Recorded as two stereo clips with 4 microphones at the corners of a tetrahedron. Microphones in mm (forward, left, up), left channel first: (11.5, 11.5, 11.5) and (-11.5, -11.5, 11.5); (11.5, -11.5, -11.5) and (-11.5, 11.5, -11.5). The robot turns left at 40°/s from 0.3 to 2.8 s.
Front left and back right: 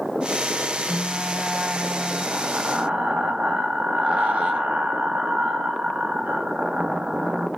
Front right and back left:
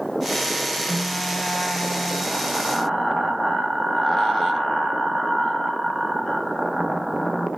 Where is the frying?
45° right, 0.7 m; by 7.5 s 120° right, 0.7 m.